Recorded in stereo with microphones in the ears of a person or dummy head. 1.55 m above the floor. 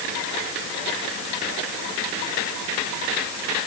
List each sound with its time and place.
Only background noise.